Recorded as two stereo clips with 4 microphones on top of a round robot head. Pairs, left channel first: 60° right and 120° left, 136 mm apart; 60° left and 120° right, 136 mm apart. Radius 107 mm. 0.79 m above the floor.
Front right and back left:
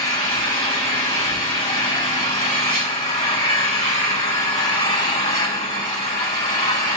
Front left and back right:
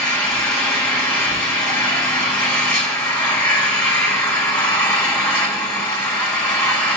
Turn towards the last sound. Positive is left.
turn(degrees=-10)